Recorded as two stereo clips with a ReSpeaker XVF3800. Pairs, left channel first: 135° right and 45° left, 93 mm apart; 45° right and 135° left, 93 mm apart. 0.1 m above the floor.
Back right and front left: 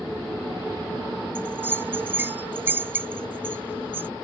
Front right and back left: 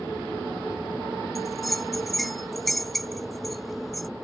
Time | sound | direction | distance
1.4 | a bell | 40° left | ?